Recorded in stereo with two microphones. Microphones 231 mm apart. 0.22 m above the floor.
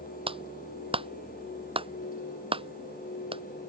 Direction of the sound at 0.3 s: 20° right (ahead or behind).